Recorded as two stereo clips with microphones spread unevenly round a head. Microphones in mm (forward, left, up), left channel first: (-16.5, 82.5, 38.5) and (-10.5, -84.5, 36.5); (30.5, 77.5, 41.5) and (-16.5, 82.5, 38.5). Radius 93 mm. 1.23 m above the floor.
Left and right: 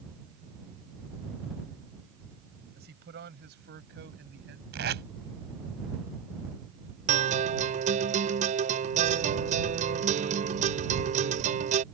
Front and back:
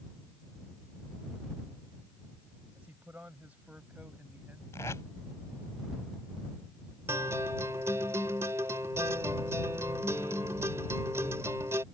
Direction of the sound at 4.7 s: 60° right.